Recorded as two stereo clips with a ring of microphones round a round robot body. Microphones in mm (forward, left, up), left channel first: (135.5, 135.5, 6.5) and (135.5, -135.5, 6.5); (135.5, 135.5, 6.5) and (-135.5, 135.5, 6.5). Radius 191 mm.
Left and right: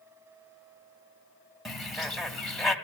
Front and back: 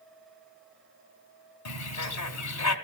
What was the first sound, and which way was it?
A bird, straight ahead.